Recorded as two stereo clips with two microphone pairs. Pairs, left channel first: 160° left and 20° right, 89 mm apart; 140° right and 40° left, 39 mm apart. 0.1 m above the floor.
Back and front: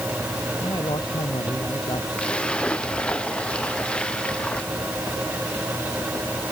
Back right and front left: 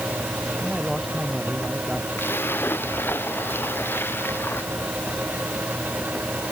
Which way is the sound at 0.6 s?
135° left.